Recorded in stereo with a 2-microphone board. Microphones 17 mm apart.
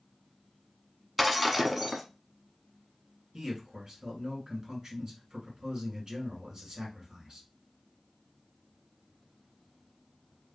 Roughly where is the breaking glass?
Centre.